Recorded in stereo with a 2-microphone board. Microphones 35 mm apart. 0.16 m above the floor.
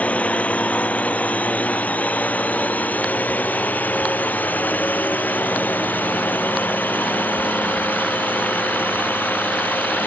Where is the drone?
45° left (ahead or behind); by 10.1 s 75° left (ahead or behind).